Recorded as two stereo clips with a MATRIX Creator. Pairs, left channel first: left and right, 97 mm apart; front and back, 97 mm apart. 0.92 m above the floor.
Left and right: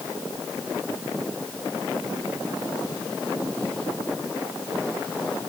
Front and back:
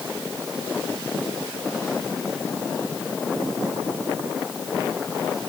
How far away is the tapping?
No tapping in this recording.